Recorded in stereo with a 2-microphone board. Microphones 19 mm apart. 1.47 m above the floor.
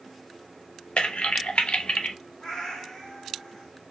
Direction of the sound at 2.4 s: 45° left (ahead or behind).